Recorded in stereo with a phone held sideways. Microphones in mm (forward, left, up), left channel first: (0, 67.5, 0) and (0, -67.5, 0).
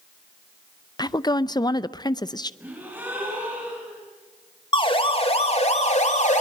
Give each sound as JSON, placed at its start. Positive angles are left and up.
{"t": 1.0, "sound": "a woman speaking", "side_deg": 30, "distance_m": 0.6}
{"t": 2.6, "sound": "a gasp", "side_deg": -15, "distance_m": 7.5}
{"t": 4.7, "sound": "a siren", "side_deg": 35, "distance_m": 2.5}